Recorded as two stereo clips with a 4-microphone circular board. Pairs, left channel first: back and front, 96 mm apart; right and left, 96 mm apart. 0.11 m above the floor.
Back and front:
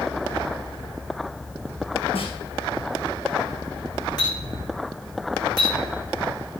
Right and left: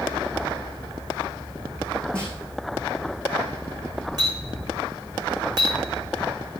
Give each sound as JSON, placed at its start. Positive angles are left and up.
{"t": 2.1, "sound": "a snare drum", "azimuth_deg": -170, "distance_m": 4.0}
{"t": 4.2, "sound": "a clink", "azimuth_deg": 135, "distance_m": 4.0}